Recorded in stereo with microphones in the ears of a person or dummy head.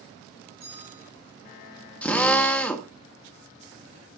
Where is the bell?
15° right (ahead or behind), 5.5 m.